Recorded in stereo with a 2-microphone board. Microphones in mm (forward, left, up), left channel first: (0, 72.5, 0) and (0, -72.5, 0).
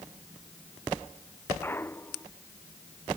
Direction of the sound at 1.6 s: 15° left (ahead or behind).